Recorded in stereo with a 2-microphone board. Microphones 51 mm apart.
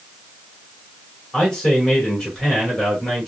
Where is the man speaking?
10° left (ahead or behind), 2.5 m.